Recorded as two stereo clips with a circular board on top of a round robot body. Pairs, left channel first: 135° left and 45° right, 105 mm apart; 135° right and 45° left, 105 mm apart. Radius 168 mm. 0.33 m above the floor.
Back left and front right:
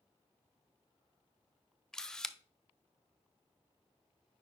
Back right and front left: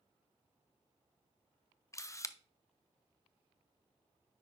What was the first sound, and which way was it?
A camera shutter, 145° right.